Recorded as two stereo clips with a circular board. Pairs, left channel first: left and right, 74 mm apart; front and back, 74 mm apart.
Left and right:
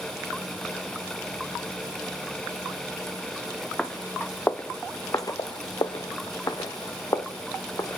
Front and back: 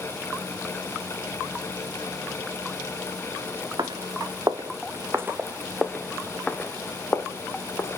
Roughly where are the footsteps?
Behind.